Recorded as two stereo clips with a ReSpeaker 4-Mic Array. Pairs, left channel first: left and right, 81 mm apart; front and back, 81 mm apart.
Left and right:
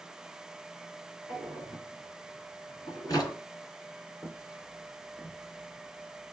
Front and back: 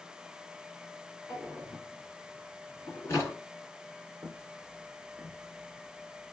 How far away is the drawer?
About 1.7 m.